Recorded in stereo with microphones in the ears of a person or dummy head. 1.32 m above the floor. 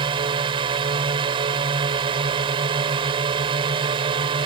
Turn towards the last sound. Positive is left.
turn(degrees=-30)  # may be behind; listen again after turning